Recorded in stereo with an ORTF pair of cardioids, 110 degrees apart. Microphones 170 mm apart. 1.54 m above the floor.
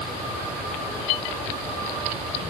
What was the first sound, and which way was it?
Only background noise.